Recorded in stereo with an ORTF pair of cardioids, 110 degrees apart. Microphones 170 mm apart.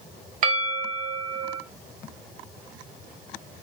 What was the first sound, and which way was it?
A bell, 55° right.